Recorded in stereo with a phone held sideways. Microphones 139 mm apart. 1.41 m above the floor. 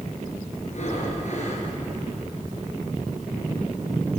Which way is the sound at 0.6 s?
55° left (ahead or behind).